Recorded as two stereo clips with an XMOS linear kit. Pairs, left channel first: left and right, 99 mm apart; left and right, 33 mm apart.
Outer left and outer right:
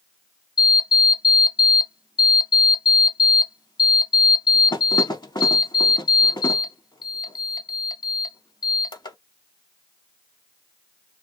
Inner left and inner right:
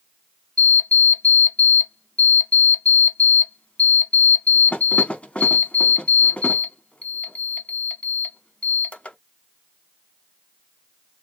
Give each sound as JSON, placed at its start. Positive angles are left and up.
{"t": 0.6, "sound": "an alarm clock", "side_deg": 45, "distance_m": 0.6}